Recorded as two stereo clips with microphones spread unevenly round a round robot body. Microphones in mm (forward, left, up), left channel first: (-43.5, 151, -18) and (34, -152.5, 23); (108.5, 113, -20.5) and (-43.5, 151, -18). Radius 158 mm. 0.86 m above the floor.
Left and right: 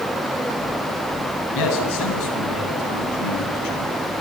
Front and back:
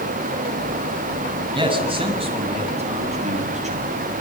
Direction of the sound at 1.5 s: 110° left.